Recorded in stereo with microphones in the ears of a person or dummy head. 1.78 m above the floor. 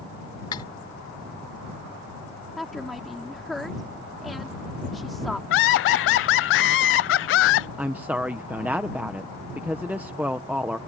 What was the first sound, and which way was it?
Cutlery clinking, 25° left (ahead or behind).